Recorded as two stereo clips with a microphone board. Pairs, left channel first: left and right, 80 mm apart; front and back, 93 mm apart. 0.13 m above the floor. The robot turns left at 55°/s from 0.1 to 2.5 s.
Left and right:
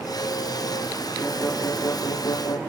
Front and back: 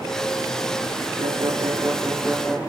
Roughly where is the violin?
Behind.